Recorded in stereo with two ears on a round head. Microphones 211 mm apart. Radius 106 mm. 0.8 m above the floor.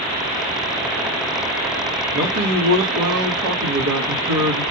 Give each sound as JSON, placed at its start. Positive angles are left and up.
{"t": 2.1, "sound": "a man speaking", "side_deg": -65, "distance_m": 1.9}